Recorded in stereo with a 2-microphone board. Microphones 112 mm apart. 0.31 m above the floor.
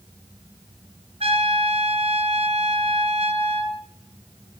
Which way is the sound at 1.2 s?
70° right (ahead or behind).